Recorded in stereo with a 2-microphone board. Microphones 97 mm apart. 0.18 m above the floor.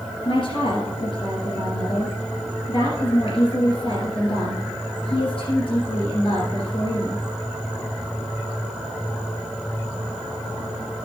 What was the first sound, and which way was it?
A woman speaking, 65° left (ahead or behind).